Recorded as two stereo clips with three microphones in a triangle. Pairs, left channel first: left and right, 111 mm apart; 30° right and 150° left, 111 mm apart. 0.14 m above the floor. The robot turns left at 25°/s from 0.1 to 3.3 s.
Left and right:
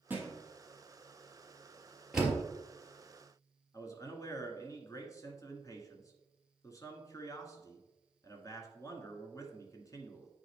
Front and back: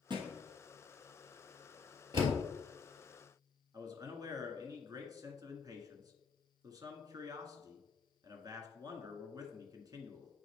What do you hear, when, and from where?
0.1 s a thud: 165° right, 1.7 m; by 0.4 s 170° right, 1.7 m
2.1 s a door slam: 175° right, 2.5 m; by 2.4 s straight behind, 2.5 m
3.7 s a man speaking: 125° left, 1.4 m